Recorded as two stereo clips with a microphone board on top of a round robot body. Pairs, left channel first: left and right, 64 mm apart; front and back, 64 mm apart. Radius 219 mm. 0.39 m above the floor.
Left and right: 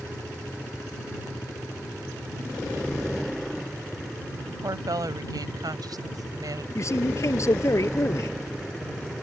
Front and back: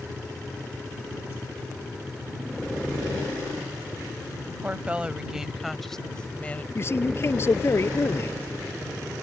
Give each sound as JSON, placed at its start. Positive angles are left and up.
{"t": 4.5, "sound": "a woman speaking", "azimuth_deg": -115}
{"t": 6.8, "sound": "a man speaking", "azimuth_deg": 50}